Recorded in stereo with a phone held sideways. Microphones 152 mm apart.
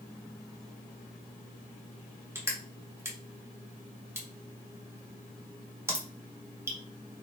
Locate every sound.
2.4 s crushing: 15° right (ahead or behind), 0.8 m